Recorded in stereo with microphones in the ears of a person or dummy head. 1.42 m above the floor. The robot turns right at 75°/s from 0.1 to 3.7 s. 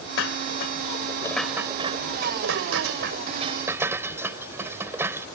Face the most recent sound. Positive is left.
turn(degrees=-10)  # may be behind; listen again after turning